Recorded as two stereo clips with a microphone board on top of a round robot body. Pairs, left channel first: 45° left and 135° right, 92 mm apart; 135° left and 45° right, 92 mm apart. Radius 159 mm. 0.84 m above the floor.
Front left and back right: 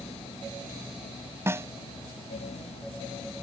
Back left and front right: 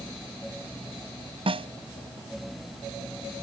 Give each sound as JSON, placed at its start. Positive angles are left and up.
{"t": 1.5, "sound": "a snare drum", "azimuth_deg": -70}